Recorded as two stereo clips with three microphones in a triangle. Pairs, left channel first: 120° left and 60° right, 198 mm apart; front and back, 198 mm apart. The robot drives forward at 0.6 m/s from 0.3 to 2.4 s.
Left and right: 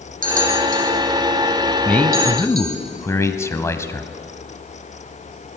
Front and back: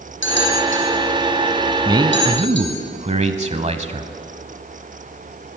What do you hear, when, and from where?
0.2 s a bell: 15° right, 4.5 m; by 2.8 s 20° right, 3.5 m
1.9 s a man speaking: 170° right, 1.0 m; by 4.1 s 175° right, 1.1 m